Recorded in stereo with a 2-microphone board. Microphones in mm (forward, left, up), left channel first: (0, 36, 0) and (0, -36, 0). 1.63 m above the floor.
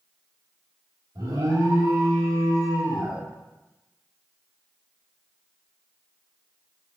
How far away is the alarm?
About 3.5 m.